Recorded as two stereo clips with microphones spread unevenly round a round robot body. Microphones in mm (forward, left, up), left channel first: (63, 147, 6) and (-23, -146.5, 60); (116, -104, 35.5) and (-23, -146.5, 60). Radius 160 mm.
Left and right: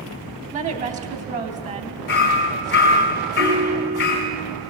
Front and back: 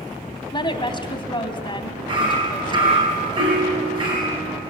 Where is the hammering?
125° left, 3.5 m.